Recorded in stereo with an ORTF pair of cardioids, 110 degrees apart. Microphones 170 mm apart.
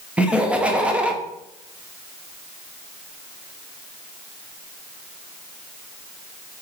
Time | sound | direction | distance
0.2 | laughter | 5° right | 0.7 m